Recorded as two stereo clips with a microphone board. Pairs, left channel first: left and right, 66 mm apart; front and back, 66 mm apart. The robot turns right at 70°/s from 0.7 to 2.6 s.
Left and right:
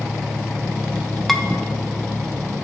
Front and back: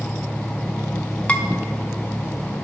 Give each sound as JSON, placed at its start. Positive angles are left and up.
{"t": 1.3, "sound": "dishes clattering", "azimuth_deg": 5, "distance_m": 0.8}